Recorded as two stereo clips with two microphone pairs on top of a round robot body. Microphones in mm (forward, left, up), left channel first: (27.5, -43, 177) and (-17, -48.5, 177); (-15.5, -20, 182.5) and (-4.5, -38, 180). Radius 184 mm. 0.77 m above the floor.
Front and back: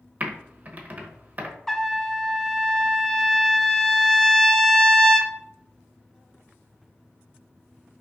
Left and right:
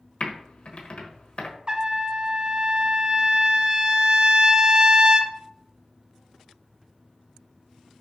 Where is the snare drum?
I don't hear a snare drum.